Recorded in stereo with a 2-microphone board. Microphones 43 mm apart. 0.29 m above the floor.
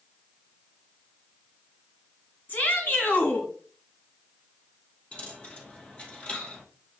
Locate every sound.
2.5 s a shout: 50° left (ahead or behind), 2.5 m
5.1 s a dropped coin: 25° left (ahead or behind), 2 m